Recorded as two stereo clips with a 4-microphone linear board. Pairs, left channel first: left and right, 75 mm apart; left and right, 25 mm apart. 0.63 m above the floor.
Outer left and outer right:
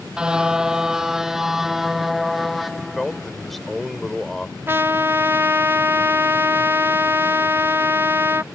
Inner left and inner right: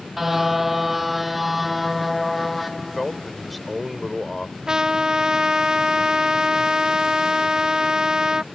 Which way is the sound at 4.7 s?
30° right (ahead or behind).